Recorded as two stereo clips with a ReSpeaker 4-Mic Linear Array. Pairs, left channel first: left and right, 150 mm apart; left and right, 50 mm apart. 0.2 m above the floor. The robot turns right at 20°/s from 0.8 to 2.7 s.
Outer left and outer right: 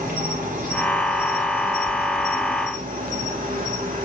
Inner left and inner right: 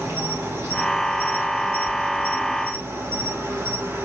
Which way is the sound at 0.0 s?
115° right.